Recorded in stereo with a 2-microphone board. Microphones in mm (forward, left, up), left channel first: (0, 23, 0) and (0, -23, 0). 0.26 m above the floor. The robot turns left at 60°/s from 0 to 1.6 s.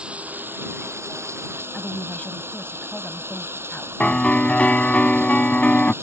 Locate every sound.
0.0 s running water: 20° right; by 6.0 s 120° right
1.7 s a woman speaking: 35° left (ahead or behind)
4.0 s a piano: 30° left (ahead or behind)